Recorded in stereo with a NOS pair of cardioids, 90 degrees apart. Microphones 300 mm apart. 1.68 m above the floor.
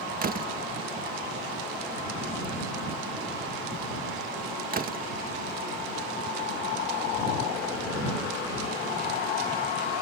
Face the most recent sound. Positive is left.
turn(degrees=-30)